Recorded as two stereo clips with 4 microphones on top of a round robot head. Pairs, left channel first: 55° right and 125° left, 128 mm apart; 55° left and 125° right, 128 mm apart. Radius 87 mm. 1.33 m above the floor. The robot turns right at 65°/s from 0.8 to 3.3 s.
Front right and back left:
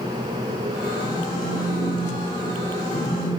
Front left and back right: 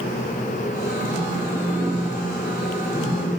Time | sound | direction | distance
1.0 | a phone buzzing | 125° right | 3 m